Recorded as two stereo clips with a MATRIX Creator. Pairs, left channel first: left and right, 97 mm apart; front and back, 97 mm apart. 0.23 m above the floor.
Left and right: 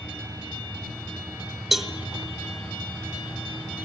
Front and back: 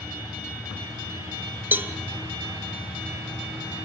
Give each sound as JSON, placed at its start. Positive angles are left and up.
{"t": 1.7, "sound": "a cowbell", "azimuth_deg": -175, "distance_m": 1.0}